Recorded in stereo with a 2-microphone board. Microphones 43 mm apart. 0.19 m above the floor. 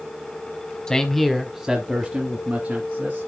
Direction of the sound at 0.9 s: 15° left (ahead or behind).